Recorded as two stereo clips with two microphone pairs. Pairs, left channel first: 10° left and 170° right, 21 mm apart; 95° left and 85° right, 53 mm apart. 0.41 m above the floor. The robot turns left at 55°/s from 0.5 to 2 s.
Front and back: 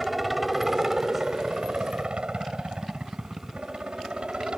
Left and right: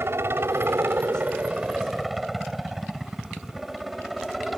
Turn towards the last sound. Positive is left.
turn(degrees=-170)